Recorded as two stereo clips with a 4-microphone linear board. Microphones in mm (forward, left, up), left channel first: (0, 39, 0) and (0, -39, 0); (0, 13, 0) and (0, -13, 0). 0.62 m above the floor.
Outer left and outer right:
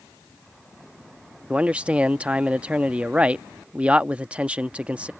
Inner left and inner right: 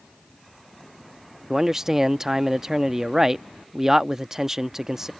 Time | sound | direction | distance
1.5 | a man speaking | 15° right (ahead or behind) | ?